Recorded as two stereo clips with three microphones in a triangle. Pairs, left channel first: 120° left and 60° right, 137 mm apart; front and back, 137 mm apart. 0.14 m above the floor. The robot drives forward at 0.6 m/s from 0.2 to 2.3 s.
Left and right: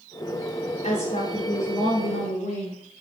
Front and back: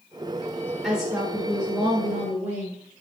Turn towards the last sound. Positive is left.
turn(degrees=120)